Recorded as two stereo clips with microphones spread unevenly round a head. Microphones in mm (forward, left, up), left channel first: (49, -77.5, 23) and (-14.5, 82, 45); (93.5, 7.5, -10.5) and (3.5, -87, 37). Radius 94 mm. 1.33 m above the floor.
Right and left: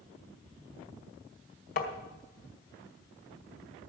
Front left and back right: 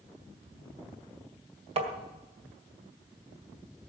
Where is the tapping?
115° right, 1.9 m.